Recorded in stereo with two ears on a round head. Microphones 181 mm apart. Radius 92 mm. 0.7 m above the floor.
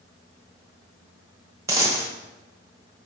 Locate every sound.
1.7 s a dropped coin: 15° right (ahead or behind), 0.8 m